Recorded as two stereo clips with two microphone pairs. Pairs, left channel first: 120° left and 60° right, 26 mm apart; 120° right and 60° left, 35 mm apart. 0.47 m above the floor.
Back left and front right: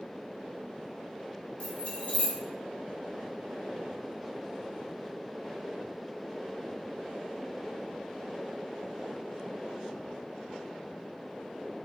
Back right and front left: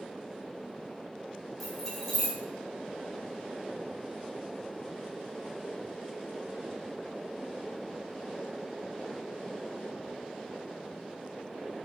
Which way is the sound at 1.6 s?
150° left.